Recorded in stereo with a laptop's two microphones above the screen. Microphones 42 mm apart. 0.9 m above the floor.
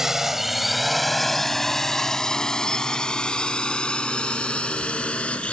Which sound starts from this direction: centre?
A drone, at 0.0 s.